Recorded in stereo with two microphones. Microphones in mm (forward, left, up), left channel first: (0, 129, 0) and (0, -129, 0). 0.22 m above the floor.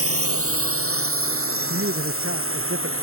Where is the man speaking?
55° right (ahead or behind).